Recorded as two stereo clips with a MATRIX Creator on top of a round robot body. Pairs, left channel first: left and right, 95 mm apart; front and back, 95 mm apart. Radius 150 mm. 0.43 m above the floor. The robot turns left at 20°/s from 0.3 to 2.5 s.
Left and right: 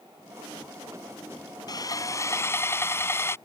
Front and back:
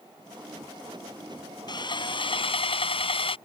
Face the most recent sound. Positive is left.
turn(degrees=25)